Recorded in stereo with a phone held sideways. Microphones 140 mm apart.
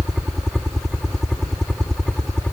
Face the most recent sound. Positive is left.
turn(degrees=5)  # may be behind; listen again after turning